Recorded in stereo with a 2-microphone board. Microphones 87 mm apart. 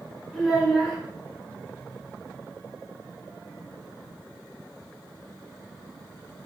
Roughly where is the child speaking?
Centre.